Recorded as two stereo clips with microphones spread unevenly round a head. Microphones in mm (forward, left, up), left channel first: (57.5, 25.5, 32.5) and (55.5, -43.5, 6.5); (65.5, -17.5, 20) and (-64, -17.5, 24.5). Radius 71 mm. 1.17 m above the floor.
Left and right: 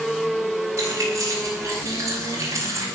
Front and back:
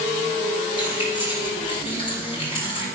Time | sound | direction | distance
0.8 | keys jangling | 50° right | 5.5 m